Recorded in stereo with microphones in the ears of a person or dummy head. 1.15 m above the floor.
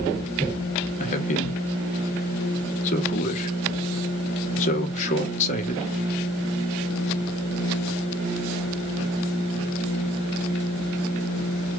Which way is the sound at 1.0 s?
40° left (ahead or behind).